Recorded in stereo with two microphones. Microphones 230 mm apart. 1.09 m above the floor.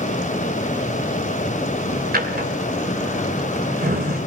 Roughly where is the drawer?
Right.